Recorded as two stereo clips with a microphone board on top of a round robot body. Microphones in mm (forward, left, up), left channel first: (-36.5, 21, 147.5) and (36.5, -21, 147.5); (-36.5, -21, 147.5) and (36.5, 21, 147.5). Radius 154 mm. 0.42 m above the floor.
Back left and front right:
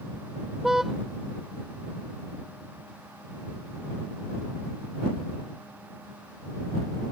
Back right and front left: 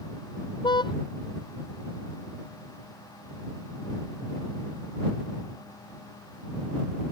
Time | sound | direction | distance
0.6 | a car horn | 115° right | ?